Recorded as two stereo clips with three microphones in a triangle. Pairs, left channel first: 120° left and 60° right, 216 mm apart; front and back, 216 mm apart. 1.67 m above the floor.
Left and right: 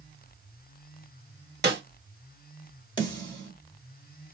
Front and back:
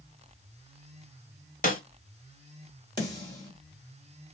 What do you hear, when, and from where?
1.6 s a snare drum: 40° right, 0.9 m
3.0 s a snare drum: 65° left, 1.8 m